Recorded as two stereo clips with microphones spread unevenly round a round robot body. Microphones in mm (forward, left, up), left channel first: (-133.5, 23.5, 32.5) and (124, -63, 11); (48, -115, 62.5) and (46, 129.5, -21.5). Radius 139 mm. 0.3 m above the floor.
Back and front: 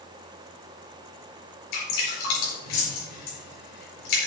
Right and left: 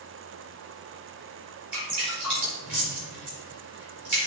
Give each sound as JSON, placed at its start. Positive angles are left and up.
{"t": 1.7, "sound": "dripping", "azimuth_deg": 170, "distance_m": 5.0}